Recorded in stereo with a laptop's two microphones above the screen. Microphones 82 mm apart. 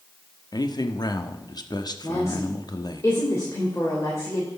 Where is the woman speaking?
35° left (ahead or behind), 3 m.